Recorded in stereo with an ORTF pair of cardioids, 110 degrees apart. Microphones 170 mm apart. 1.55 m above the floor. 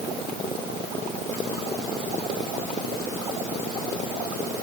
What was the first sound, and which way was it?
Only background noise.